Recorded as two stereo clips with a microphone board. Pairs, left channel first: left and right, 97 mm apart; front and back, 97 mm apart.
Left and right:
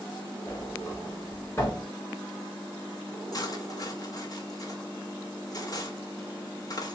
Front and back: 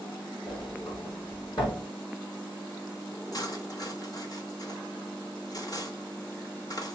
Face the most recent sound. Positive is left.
turn(degrees=45)